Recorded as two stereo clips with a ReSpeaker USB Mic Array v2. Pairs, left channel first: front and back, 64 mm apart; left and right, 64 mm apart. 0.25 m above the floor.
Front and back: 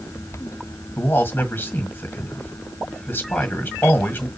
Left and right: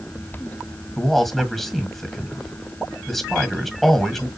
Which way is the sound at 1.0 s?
5° left.